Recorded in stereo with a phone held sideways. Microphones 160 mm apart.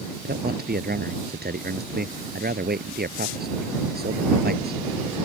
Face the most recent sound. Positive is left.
turn(degrees=-80)